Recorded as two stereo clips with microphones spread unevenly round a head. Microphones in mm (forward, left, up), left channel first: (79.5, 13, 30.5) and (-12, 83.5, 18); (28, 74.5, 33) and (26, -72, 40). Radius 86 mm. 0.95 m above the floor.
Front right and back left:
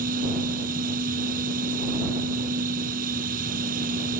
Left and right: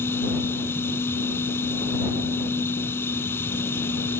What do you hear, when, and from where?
0.0 s a machine running: 165° left